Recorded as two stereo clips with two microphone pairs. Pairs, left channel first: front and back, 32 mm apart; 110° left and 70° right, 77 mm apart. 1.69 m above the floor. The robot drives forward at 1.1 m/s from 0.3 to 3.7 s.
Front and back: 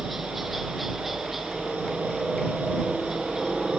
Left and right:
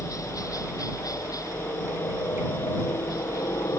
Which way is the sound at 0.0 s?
95° left.